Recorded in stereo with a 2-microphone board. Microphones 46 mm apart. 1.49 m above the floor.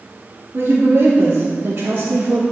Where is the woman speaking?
60° right (ahead or behind), 3 m; by 2.4 s 45° right (ahead or behind), 1.5 m.